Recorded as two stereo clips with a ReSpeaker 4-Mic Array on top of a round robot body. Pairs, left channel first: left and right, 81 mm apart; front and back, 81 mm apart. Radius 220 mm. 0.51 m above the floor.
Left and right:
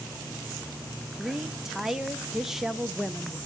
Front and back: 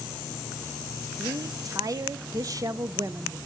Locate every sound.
1.2 s a woman speaking: 175° right, 0.9 m